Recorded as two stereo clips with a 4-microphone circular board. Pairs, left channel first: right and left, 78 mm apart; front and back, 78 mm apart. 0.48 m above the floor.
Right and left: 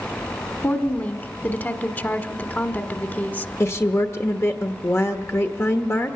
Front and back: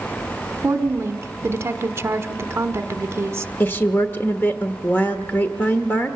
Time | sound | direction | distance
0.6 | a woman speaking | 145° right | 1.3 m
3.6 | a woman speaking | 50° right | 1.2 m